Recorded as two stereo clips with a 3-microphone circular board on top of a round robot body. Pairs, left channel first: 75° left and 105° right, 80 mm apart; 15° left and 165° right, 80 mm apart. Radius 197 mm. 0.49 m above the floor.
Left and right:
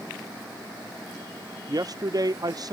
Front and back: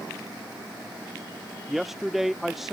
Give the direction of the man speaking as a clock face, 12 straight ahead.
3 o'clock.